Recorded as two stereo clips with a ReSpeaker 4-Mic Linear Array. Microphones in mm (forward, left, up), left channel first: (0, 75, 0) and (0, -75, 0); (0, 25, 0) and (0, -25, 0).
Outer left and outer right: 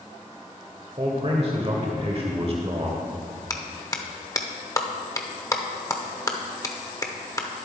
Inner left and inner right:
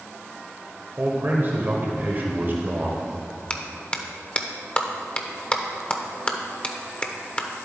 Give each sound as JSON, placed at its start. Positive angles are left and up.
{"t": 1.0, "sound": "a man speaking", "side_deg": -40, "distance_m": 1.2}
{"t": 3.5, "sound": "a clap", "side_deg": 20, "distance_m": 0.8}